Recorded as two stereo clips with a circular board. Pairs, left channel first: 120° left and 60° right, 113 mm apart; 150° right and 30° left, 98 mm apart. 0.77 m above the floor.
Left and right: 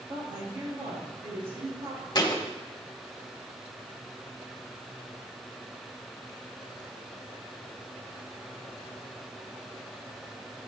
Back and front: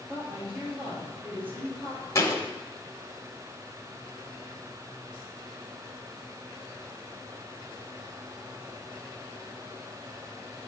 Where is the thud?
160° left, 0.9 m.